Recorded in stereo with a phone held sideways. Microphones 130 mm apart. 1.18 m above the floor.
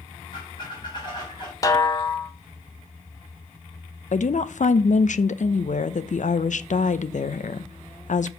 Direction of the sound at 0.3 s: 35° left (ahead or behind).